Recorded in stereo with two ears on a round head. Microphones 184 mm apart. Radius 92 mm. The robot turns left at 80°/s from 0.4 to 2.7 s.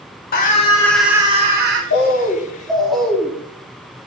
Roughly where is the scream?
Ahead left.